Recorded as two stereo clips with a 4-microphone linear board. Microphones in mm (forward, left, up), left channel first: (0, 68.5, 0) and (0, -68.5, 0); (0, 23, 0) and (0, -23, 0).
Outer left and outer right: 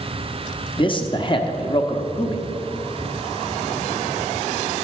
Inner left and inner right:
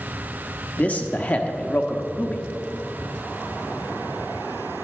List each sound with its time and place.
0.8 s a man speaking: 40° left (ahead or behind), 0.9 m